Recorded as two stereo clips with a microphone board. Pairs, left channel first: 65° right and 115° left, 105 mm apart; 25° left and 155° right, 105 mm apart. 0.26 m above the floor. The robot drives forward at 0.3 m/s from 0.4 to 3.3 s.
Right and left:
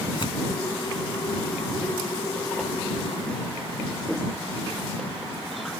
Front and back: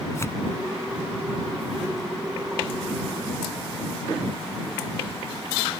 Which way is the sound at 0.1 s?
40° right.